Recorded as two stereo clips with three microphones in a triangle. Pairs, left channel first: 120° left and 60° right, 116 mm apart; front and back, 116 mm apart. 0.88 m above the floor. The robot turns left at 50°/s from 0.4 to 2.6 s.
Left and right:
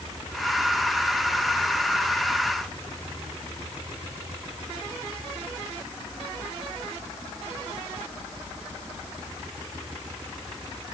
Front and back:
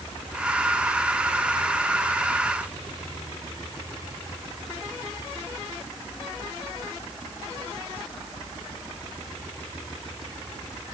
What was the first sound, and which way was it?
Only background noise.